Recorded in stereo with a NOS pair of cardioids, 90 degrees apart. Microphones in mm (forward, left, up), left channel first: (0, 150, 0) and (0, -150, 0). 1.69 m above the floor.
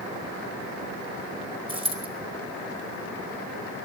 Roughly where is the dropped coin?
Ahead.